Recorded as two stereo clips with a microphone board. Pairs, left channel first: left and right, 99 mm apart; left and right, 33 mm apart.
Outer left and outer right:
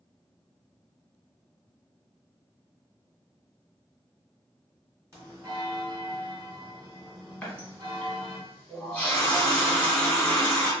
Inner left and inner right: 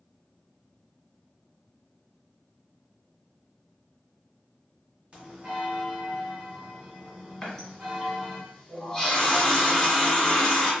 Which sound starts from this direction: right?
A bell, at 5.1 s.